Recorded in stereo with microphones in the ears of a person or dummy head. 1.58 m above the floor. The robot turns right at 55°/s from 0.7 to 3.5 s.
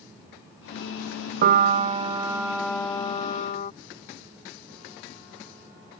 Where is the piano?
65° right; by 3.7 s 50° left.